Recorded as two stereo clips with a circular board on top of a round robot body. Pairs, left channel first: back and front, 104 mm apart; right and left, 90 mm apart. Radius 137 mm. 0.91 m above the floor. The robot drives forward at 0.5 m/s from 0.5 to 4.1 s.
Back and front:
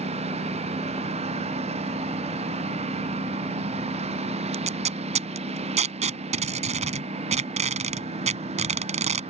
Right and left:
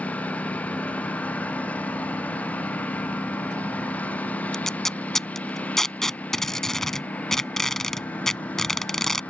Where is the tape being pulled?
5° right.